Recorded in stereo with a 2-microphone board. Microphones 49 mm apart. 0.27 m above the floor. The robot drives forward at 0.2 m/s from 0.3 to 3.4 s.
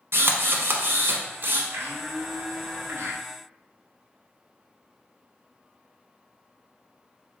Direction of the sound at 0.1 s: 65° right (ahead or behind).